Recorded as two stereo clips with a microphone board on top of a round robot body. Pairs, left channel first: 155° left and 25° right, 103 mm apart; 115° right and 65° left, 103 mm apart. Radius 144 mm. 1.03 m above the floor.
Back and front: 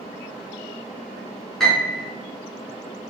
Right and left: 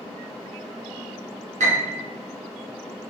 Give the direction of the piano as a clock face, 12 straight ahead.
10 o'clock.